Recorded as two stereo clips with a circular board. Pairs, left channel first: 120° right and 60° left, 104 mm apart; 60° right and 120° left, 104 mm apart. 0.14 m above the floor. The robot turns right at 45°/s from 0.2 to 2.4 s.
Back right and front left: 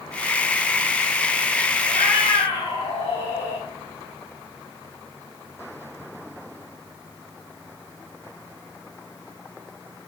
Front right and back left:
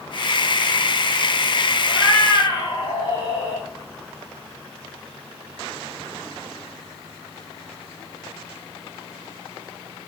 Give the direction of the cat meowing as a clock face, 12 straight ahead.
5 o'clock.